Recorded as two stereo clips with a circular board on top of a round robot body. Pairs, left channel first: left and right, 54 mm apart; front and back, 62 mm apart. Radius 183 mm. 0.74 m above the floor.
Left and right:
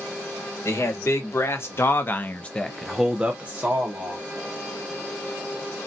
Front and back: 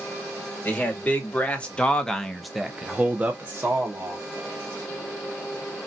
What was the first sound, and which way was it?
A man speaking, 60° left.